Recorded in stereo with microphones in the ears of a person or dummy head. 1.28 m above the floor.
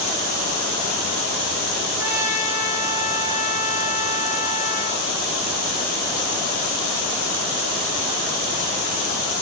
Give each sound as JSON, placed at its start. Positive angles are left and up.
{"t": 2.0, "sound": "a trumpet", "side_deg": -15, "distance_m": 2.5}